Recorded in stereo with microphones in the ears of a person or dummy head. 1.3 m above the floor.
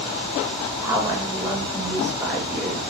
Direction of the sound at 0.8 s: 15° right (ahead or behind).